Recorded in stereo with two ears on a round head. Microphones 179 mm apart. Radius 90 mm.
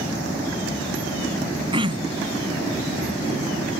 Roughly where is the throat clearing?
Right.